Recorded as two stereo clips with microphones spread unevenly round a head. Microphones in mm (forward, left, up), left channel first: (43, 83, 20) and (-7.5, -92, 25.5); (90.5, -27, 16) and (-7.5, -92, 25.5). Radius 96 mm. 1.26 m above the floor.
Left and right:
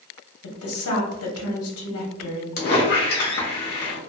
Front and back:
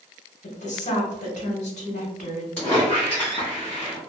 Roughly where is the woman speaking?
Left.